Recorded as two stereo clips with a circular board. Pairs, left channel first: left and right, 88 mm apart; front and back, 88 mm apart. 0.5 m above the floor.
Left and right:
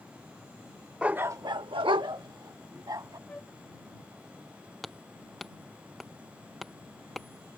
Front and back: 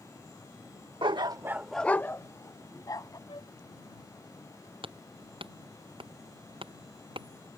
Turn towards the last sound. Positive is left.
turn(degrees=180)